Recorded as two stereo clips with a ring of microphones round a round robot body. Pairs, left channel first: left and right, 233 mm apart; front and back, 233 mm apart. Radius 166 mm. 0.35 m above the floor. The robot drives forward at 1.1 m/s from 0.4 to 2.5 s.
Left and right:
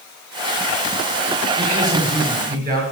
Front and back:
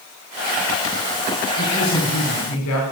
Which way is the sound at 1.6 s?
35° right.